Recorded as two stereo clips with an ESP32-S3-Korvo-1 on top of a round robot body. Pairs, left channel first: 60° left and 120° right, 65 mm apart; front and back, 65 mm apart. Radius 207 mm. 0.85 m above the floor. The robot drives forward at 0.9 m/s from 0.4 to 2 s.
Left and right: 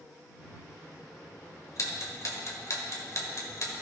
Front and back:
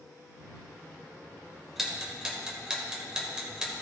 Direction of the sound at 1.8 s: 95° left.